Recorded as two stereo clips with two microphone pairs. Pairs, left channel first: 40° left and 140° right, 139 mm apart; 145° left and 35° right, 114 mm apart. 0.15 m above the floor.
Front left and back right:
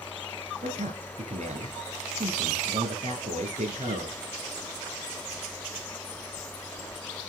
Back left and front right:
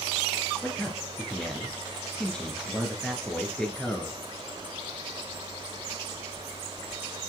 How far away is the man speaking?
About 2.5 m.